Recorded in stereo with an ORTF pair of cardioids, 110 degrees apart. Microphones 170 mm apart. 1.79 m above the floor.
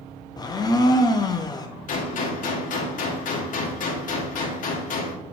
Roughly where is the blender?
Ahead left.